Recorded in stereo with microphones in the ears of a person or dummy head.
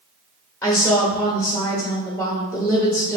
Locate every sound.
0.6 s a woman speaking: 15° left (ahead or behind), 1.1 m